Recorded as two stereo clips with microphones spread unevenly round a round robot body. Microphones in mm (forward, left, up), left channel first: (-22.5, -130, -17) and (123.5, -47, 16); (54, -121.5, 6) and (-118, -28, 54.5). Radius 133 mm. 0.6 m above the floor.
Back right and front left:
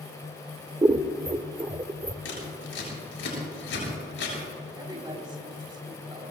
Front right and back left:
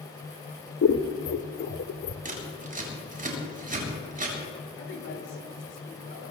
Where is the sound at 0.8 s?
40° right, 1.0 m.